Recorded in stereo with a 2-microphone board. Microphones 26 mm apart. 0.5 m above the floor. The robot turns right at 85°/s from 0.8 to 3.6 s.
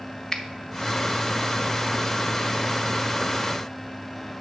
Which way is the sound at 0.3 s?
30° left (ahead or behind).